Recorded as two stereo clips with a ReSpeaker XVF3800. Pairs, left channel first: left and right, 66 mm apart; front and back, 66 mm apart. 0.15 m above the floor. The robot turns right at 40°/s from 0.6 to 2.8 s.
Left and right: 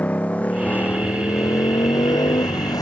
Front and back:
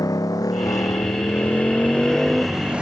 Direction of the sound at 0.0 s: 20° left.